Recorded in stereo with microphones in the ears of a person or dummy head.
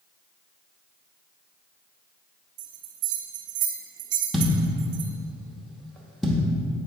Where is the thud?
5° right (ahead or behind), 0.9 m.